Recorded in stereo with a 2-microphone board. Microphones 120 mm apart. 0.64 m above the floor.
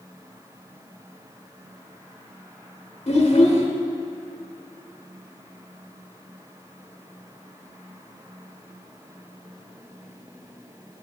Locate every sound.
3.1 s a child speaking: 55° left (ahead or behind), 0.9 m